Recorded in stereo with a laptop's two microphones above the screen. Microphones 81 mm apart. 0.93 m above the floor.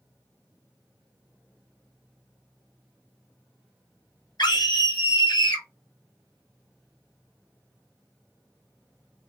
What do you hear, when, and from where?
4.4 s a scream: 55° left (ahead or behind), 1.5 m